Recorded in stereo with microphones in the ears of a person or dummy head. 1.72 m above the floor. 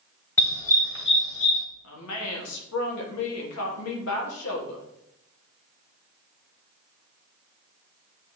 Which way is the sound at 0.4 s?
15° left (ahead or behind).